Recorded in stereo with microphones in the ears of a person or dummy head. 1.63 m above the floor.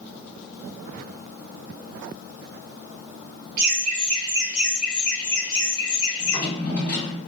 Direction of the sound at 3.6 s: 55° right (ahead or behind).